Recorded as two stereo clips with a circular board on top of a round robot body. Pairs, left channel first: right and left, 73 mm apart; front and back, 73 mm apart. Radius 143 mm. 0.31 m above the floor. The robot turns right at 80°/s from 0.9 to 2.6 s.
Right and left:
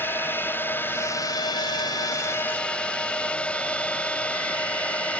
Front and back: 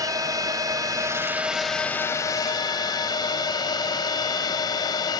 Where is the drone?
150° right; by 5.2 s 20° right.